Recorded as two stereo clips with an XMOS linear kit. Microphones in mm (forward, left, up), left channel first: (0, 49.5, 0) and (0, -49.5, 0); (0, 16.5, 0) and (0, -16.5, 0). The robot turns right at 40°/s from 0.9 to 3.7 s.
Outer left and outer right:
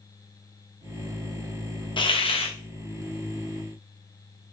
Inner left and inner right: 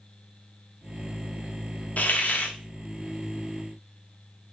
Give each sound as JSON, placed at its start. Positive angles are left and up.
{"t": 2.0, "sound": "a hiss", "side_deg": 55, "distance_m": 0.6}